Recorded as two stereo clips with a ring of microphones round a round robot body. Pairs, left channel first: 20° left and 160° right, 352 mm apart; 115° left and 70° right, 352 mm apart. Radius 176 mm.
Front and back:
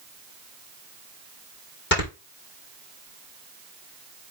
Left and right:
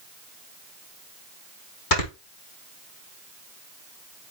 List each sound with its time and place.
1.9 s snoring: 85° left, 4.5 m